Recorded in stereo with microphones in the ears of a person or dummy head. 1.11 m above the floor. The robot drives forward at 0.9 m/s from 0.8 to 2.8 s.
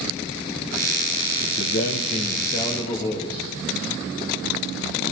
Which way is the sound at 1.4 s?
60° left (ahead or behind).